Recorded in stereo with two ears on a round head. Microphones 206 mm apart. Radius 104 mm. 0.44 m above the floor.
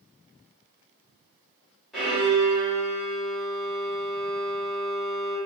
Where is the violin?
Centre (ahead or behind), 1.4 m.